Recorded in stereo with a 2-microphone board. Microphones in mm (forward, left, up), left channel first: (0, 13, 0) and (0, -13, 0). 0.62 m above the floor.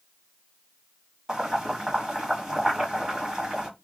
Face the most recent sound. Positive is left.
turn(degrees=-30)  # may be behind; listen again after turning